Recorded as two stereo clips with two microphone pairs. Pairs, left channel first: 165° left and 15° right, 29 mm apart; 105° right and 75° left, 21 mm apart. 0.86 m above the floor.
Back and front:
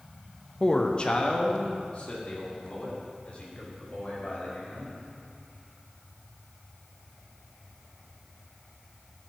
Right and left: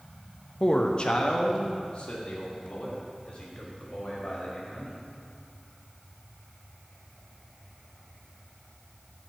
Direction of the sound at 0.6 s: 145° right.